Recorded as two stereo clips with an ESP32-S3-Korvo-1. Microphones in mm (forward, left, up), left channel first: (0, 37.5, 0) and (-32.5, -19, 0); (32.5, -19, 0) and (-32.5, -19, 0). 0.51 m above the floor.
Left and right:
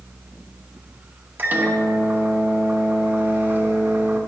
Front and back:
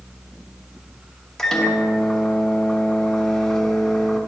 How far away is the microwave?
About 1.1 m.